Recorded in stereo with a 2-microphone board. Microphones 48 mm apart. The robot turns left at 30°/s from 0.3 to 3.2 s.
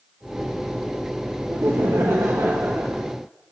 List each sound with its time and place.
1.5 s laughter: 90° right, 0.6 m; by 3.0 s 140° right, 0.6 m